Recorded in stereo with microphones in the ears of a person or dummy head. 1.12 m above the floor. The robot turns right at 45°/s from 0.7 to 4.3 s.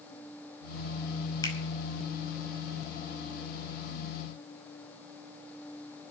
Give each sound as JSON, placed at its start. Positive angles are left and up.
{"t": 1.4, "sound": "a finger snap", "side_deg": 20, "distance_m": 5.0}